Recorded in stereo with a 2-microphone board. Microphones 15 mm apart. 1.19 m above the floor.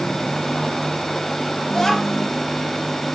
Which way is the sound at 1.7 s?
55° left (ahead or behind).